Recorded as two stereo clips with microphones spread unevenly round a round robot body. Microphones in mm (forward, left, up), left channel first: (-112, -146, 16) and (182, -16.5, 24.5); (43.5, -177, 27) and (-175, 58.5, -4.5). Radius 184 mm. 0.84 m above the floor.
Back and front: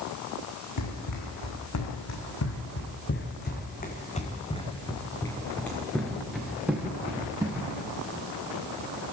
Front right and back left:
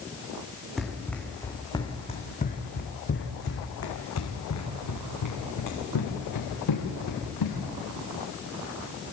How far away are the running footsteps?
About 4 m.